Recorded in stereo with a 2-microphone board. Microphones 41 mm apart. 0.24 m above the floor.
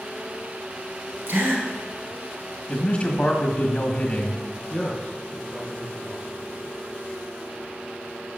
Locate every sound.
1.3 s a gasp: 60° right (ahead or behind), 2 m
2.7 s a man speaking: 30° left (ahead or behind), 1.6 m
4.7 s a man speaking: 15° left (ahead or behind), 3 m